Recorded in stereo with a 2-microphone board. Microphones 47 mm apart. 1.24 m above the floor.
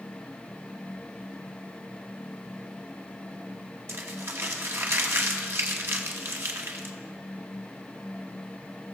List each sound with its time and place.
3.9 s crumpling: 60° right (ahead or behind), 1.2 m